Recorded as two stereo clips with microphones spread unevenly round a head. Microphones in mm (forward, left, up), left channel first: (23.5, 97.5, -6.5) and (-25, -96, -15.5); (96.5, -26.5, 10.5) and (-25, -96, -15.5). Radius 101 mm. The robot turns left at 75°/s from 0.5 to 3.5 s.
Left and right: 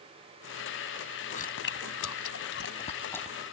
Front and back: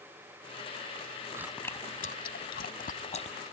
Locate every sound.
1.3 s chewing: 130° left; by 3.4 s 20° right